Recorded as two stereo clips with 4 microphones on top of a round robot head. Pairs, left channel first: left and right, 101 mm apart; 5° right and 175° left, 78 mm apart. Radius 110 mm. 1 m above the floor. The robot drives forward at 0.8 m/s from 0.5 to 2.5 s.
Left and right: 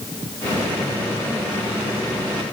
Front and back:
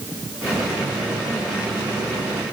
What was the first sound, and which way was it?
Only background noise.